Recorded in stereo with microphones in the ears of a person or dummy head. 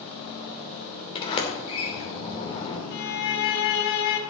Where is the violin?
55° left (ahead or behind), 2 m.